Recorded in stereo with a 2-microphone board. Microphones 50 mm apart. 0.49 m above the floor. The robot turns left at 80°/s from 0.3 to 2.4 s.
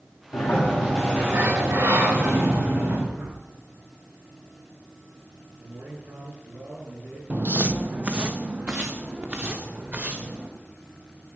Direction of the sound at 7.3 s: 35° right (ahead or behind).